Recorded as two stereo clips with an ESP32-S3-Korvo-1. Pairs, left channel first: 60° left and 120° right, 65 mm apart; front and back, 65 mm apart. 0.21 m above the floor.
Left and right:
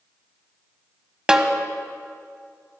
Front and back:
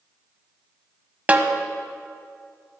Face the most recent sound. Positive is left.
turn(degrees=-175)